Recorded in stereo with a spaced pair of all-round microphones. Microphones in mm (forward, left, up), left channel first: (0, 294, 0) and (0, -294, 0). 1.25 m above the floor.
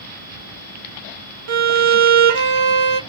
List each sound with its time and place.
1.5 s a violin: 60° right (ahead or behind), 0.6 m